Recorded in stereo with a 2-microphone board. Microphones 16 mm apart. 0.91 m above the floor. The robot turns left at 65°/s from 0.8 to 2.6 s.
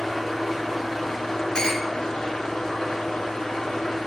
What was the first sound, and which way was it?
An engine running, 170° right.